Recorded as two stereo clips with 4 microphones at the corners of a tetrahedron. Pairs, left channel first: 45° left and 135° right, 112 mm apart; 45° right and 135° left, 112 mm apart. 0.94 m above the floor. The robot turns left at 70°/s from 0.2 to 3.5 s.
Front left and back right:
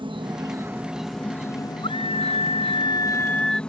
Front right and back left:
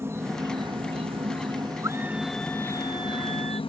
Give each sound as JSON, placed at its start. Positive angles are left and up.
{"t": 0.0, "sound": "an insect", "azimuth_deg": -165}
{"t": 1.8, "sound": "a scream", "azimuth_deg": 75}